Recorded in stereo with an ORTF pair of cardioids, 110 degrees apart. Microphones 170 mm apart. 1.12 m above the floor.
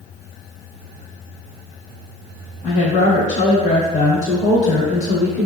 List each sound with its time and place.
2.6 s a woman speaking: 45° left, 1.0 m